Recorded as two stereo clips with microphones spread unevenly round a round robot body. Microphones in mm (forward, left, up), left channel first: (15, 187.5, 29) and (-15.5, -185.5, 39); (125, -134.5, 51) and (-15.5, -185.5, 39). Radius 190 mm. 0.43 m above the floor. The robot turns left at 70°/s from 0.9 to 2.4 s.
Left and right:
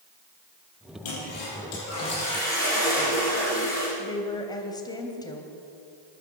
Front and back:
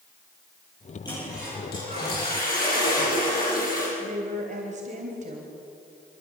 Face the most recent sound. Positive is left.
turn(degrees=165)